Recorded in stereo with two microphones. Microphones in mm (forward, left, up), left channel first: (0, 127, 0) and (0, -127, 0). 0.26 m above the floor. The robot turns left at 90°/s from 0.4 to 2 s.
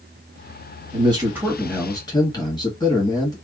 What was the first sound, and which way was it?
A man speaking, 20° right (ahead or behind).